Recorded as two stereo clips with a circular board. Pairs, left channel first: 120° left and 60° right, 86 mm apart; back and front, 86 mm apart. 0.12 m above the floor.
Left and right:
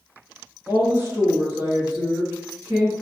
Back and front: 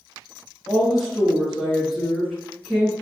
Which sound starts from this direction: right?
A woman speaking, at 0.7 s.